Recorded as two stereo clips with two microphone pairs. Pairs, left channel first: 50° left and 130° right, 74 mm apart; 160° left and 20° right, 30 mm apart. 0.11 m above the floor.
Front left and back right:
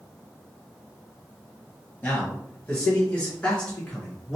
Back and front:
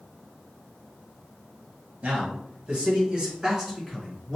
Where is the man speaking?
15° right, 1.8 m; by 4.4 s 100° left, 1.2 m.